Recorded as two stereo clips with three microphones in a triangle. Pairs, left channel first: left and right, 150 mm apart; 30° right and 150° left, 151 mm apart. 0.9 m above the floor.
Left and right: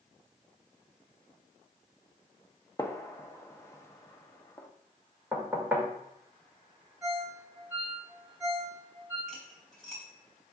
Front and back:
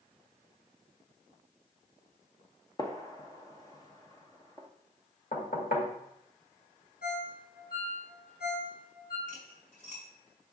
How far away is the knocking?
About 1.9 m.